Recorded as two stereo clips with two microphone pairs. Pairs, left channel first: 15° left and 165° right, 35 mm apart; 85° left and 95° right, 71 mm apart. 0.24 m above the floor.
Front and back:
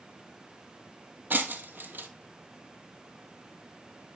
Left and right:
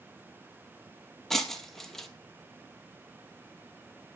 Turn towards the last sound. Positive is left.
turn(degrees=170)